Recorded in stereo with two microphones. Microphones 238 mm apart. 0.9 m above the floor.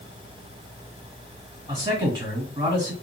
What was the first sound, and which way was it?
A man speaking, 20° right (ahead or behind).